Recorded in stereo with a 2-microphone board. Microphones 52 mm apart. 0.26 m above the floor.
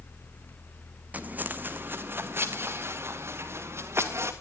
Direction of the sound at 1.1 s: 30° right (ahead or behind).